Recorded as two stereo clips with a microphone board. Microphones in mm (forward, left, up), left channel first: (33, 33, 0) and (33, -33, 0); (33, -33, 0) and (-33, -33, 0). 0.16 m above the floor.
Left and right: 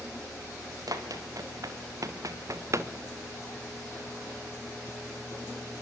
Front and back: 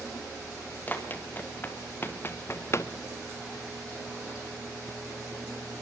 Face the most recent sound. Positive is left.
turn(degrees=-45)